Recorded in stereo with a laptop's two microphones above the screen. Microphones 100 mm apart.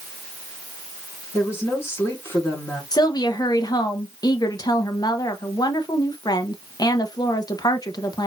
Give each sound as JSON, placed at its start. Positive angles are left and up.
{"t": 1.3, "sound": "a woman speaking", "side_deg": 25, "distance_m": 3.5}
{"t": 2.9, "sound": "a woman speaking", "side_deg": 40, "distance_m": 1.0}